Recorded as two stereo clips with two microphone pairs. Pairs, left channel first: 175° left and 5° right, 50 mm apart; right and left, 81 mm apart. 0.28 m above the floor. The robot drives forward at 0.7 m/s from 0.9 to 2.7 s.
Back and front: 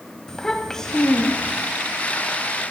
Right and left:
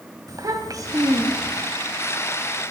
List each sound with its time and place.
0.3 s a child speaking: 105° left, 1.3 m; by 1.7 s 130° left, 1.5 m